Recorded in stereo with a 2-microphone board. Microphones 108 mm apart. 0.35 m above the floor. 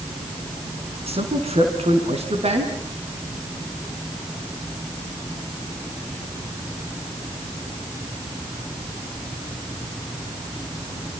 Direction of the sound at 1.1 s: 70° right (ahead or behind).